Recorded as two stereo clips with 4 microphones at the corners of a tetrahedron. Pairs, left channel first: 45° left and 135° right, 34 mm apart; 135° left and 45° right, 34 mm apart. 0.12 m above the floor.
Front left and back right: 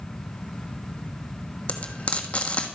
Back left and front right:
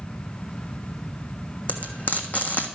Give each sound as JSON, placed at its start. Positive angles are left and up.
{"t": 1.7, "sound": "frying", "azimuth_deg": 95, "distance_m": 1.2}